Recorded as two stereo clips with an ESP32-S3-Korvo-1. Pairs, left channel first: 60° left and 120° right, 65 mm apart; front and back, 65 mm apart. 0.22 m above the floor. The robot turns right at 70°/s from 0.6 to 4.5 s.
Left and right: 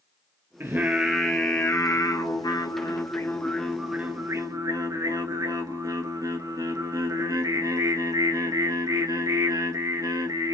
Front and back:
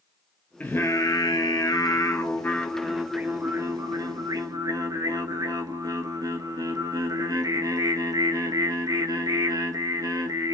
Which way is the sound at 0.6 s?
65° right.